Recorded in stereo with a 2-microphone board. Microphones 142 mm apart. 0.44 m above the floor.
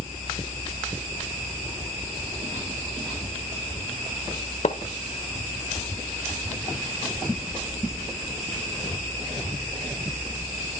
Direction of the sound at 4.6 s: 55° left (ahead or behind).